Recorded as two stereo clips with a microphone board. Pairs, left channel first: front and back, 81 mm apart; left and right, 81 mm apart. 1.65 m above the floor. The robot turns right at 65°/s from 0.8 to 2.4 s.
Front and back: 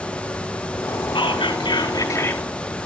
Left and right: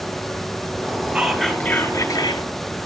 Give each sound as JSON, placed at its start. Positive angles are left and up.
{"t": 1.1, "sound": "whispering", "azimuth_deg": -15, "distance_m": 2.5}